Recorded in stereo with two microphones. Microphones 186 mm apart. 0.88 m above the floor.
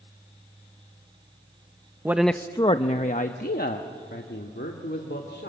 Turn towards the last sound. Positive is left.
turn(degrees=70)  # may be behind; listen again after turning